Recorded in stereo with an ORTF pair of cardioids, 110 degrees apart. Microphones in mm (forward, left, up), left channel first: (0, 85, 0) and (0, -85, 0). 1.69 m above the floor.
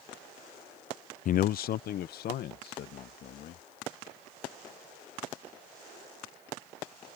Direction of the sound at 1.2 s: 50° left.